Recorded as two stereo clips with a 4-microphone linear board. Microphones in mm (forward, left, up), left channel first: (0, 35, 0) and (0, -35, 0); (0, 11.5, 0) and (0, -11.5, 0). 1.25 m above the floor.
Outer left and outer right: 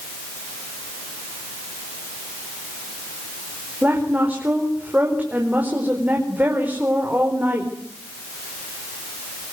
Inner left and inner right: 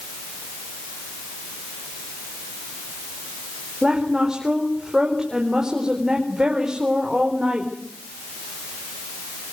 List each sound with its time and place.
3.8 s a woman speaking: 25° right (ahead or behind), 4.5 m